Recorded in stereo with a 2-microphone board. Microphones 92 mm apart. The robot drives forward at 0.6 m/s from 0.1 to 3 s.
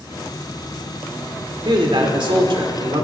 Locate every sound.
1.6 s a man speaking: 60° right (ahead or behind), 2 m